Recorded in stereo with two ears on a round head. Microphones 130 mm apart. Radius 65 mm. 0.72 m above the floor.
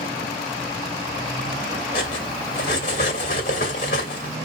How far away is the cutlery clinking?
About 2 m.